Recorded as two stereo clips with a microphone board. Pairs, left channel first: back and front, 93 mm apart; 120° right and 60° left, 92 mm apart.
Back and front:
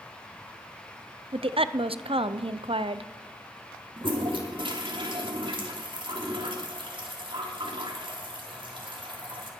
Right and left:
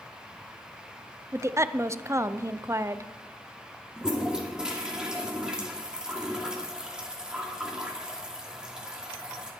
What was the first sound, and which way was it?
A woman speaking, straight ahead.